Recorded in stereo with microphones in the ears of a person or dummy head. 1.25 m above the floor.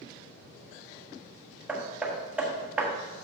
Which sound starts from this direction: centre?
Hammering, at 1.7 s.